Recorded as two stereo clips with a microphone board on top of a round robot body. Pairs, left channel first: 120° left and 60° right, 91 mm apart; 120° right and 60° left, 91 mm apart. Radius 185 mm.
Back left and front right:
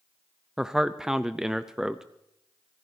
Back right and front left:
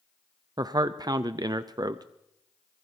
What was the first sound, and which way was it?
A man speaking, 25° left.